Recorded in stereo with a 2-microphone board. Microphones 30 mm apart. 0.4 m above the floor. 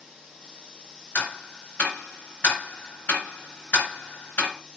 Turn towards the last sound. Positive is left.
turn(degrees=75)  # may be behind; listen again after turning